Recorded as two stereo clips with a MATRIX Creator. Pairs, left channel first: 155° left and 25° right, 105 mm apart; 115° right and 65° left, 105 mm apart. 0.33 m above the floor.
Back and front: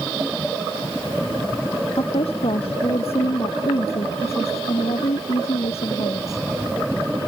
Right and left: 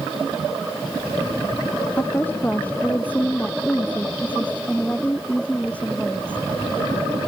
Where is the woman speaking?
175° left; by 6.4 s 170° left.